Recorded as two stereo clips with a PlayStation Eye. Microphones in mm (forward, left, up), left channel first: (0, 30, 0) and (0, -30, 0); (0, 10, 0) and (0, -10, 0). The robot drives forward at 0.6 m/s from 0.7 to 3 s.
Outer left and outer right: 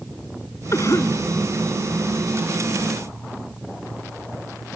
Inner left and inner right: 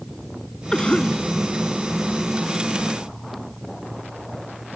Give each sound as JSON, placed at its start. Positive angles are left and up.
{"t": 0.7, "sound": "a cough", "side_deg": 55}